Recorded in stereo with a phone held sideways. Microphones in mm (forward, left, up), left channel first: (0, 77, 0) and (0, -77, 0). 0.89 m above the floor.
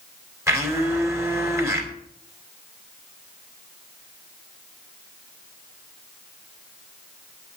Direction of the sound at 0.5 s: 20° right (ahead or behind).